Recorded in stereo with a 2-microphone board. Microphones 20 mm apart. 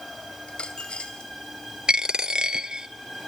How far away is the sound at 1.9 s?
About 0.7 m.